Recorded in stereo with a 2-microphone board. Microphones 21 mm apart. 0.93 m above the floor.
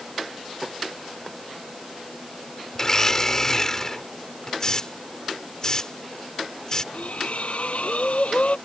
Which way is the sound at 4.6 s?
30° left (ahead or behind).